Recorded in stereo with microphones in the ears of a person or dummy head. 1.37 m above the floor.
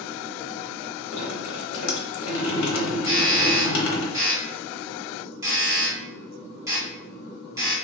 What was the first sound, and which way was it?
Dripping, 85° left.